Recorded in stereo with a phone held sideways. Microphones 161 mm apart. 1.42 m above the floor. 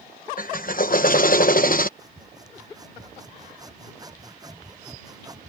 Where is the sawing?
25° right (ahead or behind).